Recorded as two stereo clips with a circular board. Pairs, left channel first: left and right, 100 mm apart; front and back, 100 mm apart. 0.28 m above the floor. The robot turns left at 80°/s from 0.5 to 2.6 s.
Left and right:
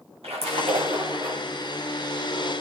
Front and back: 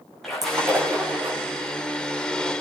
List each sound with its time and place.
0.2 s a splash: 90° right, 6.5 m; by 1.4 s 160° right, 6.5 m